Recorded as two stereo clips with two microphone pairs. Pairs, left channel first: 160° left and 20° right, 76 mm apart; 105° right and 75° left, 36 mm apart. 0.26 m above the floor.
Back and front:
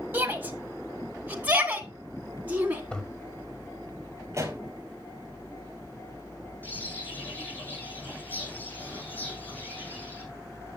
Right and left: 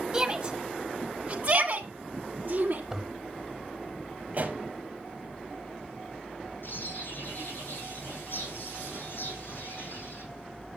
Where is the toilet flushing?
110° left, 1.3 m.